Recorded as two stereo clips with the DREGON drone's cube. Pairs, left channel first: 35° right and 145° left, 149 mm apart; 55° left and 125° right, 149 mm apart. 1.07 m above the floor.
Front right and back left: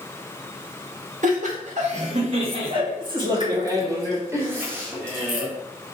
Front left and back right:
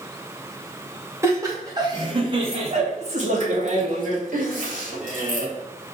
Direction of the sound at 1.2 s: 165° left.